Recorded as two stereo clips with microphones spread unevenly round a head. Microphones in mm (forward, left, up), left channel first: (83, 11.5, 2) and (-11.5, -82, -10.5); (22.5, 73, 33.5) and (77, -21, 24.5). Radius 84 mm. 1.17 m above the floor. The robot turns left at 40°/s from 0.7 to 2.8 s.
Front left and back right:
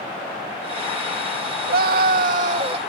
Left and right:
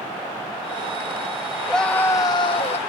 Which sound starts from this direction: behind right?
A scream, at 1.7 s.